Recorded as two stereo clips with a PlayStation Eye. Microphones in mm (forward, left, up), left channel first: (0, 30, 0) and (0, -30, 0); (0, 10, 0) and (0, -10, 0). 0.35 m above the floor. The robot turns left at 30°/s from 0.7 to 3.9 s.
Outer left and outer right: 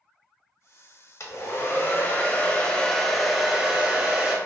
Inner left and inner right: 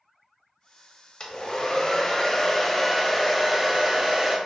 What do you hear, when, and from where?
1.2 s a hair dryer: 65° left, 0.5 m; by 4.4 s 20° right, 0.5 m